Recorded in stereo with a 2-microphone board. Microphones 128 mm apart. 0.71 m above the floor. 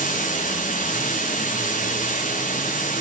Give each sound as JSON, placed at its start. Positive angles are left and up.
{"t": 0.0, "sound": "running water", "side_deg": 80, "distance_m": 6.0}